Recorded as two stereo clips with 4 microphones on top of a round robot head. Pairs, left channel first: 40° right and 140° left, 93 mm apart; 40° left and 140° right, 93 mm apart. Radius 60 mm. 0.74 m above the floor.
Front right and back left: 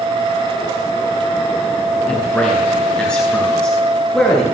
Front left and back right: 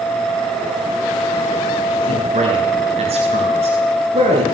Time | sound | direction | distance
2.1 | a man speaking | 120° right | 8.5 m